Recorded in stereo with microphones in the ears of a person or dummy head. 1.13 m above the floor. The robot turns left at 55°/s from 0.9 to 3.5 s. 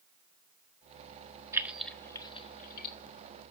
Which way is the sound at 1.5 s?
10° right (ahead or behind).